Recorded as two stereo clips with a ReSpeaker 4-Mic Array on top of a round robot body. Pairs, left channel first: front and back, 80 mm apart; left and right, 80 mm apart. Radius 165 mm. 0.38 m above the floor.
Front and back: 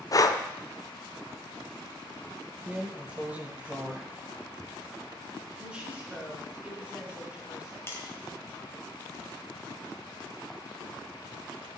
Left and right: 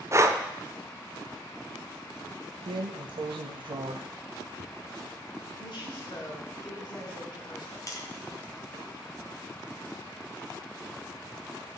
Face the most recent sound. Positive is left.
turn(degrees=55)